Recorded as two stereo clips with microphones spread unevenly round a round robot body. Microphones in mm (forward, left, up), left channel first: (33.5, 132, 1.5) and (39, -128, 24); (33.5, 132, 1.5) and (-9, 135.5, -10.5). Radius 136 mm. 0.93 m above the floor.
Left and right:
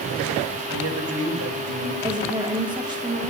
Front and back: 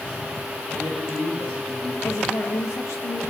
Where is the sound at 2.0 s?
15° right, 2 m.